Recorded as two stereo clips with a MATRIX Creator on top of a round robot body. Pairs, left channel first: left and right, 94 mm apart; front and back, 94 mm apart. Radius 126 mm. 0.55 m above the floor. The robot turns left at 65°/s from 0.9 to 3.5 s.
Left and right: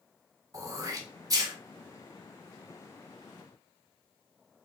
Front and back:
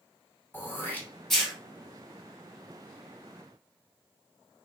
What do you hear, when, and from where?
0.5 s throat clearing: 60° right, 1.2 m; by 1.5 s 100° right, 1.2 m